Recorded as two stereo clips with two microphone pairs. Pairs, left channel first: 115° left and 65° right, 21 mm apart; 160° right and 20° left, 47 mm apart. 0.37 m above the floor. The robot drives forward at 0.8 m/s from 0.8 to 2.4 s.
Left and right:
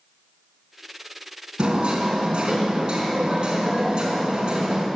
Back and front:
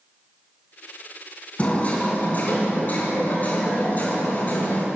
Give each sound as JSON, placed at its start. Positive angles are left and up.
{"t": 1.6, "sound": "hammering", "azimuth_deg": -95, "distance_m": 3.5}